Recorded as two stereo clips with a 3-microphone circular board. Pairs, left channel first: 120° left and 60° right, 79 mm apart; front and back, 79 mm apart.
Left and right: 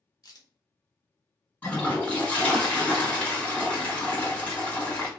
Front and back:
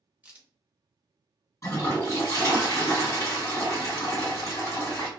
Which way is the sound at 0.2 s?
115° left.